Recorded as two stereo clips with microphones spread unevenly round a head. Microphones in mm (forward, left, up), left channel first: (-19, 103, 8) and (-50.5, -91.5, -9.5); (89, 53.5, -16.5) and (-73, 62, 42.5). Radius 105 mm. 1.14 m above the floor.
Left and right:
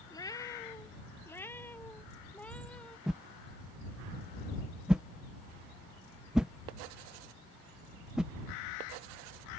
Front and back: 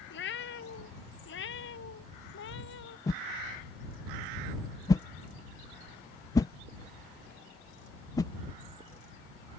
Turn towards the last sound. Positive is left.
turn(degrees=-20)